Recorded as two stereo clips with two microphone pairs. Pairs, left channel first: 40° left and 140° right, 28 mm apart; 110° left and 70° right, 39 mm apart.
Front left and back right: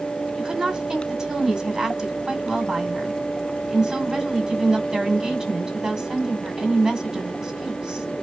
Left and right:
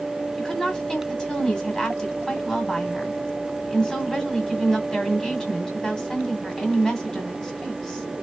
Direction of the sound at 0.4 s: 170° left.